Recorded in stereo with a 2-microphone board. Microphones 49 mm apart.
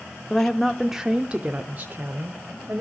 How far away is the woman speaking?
About 0.8 m.